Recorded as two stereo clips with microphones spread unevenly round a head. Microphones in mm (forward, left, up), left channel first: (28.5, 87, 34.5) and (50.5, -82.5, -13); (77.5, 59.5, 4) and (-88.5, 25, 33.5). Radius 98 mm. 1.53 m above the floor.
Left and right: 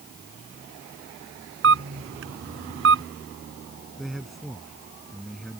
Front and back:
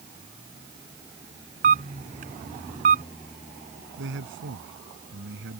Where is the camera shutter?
115° right.